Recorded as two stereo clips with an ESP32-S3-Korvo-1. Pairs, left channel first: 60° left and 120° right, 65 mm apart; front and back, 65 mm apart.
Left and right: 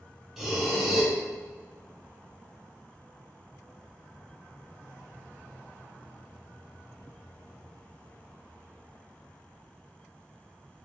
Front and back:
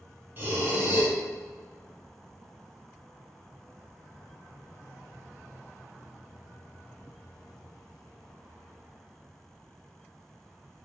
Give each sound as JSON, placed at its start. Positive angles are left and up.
{"t": 0.4, "sound": "breathing", "azimuth_deg": 160, "distance_m": 0.8}